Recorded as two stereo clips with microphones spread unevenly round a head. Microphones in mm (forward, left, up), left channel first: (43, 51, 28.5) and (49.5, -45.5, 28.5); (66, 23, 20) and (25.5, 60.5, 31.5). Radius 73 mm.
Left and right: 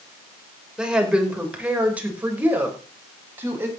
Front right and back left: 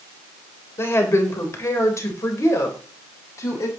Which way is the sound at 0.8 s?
5° right.